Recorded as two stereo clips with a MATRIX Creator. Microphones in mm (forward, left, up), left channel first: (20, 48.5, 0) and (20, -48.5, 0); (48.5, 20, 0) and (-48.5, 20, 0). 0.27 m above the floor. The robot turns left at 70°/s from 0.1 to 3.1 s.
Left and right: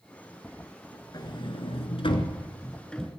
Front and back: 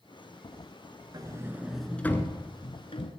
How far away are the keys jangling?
I don't hear keys jangling.